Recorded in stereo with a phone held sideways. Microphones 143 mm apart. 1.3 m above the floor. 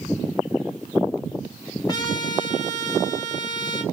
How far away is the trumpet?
About 2.5 m.